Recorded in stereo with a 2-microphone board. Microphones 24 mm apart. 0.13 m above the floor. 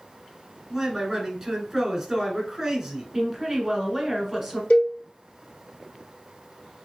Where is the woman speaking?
10° right (ahead or behind), 1.3 m.